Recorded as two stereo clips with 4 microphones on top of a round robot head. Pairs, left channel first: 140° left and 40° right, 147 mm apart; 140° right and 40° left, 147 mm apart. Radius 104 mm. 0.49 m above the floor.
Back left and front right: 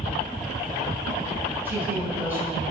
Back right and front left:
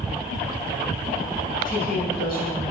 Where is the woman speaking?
120° right, 3.5 m.